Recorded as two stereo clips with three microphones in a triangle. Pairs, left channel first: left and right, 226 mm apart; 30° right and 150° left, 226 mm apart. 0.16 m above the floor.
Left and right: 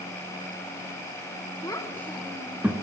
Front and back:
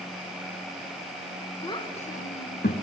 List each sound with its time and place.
1.6 s a child speaking: 25° left, 0.9 m; by 2.7 s 10° right, 1.2 m